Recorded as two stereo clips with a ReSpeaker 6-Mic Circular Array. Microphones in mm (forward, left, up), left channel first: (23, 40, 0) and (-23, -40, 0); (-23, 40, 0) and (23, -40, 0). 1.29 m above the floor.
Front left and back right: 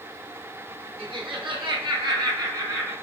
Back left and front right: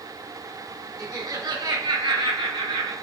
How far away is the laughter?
About 1.3 m.